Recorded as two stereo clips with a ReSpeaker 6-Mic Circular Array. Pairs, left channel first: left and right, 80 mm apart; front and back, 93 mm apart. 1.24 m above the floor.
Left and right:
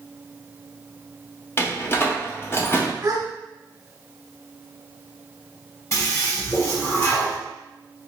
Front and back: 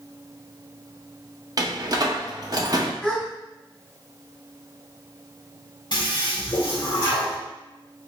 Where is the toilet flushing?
35° left, 1.8 m.